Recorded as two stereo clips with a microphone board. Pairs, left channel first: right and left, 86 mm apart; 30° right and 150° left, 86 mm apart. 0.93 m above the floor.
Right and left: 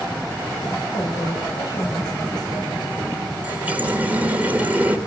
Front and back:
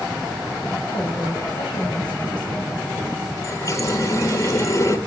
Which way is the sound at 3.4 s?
20° left.